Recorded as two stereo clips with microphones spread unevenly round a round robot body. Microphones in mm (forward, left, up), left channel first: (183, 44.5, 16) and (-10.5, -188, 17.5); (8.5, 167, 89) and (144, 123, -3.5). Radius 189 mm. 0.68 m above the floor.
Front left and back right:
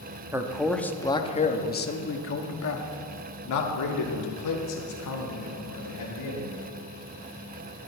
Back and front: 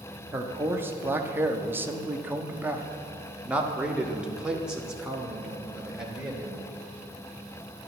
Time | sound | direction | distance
0.3 | a man speaking | 50° right | 1.2 m